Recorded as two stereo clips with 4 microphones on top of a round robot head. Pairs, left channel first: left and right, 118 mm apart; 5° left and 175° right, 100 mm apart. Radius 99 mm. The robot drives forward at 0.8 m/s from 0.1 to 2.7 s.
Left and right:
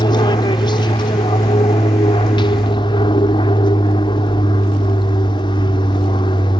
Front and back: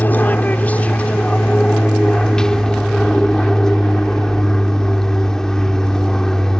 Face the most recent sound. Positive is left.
turn(degrees=85)